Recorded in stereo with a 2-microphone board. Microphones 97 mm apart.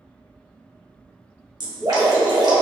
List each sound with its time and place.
1.6 s dripping: 40° right (ahead or behind), 0.8 m